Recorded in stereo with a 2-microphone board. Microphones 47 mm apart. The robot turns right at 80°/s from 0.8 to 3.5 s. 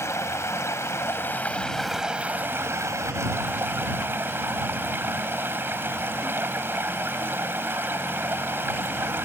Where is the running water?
95° left; by 9.2 s 50° right.